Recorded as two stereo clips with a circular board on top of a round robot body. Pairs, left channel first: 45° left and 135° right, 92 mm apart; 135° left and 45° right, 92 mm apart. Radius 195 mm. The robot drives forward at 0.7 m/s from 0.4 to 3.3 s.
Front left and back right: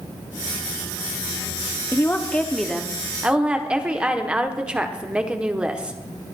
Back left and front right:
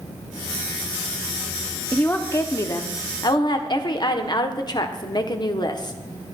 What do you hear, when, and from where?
1.9 s a woman speaking: 75° left, 1.1 m; by 6.0 s 150° left, 1.4 m